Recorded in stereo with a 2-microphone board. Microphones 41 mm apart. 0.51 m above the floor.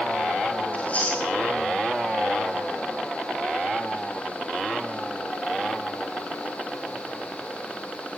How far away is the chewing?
About 8.5 m.